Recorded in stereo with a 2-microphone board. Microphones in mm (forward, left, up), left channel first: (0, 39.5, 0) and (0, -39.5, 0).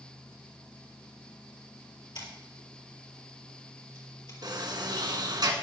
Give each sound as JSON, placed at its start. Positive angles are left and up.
{"t": 2.1, "sound": "scissors", "side_deg": 70, "distance_m": 4.5}
{"t": 4.4, "sound": "a sliding door", "side_deg": -60, "distance_m": 2.0}